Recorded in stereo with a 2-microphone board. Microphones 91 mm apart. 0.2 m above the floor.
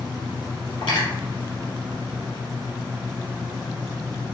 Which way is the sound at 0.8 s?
60° left (ahead or behind).